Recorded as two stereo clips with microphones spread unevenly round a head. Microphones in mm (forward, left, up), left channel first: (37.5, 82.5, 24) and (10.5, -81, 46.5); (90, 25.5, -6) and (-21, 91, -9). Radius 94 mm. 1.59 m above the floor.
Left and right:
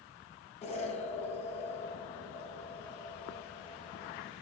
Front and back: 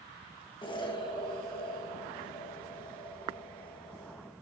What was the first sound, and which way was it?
An explosion, 25° left.